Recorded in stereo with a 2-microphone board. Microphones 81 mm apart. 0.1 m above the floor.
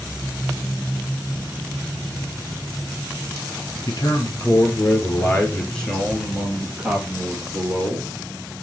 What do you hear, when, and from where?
3.9 s a man speaking: 45° left (ahead or behind), 1.6 m; by 8.1 s 25° right (ahead or behind), 2 m